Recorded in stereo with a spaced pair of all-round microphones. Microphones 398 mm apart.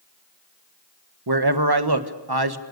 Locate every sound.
1.3 s a man speaking: 70° right (ahead or behind), 1.6 m